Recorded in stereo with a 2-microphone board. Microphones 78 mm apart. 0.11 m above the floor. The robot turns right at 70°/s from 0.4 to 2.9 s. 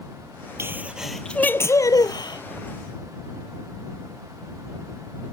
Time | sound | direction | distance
0.6 | a sneeze | 35° right | ?